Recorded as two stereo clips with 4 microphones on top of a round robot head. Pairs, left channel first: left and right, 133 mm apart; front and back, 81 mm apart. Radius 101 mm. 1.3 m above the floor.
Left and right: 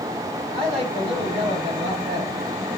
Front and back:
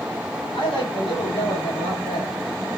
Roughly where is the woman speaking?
Ahead right.